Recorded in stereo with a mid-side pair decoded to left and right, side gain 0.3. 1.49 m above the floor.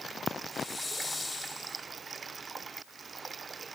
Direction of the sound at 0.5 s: 35° left.